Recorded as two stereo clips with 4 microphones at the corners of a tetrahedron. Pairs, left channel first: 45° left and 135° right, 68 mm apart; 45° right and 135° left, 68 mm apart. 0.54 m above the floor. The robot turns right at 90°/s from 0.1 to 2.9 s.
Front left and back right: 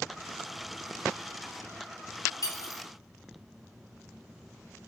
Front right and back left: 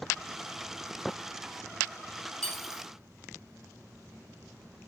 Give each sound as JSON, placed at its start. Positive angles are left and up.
{"t": 2.4, "sound": "cutlery clinking", "azimuth_deg": 30, "distance_m": 0.9}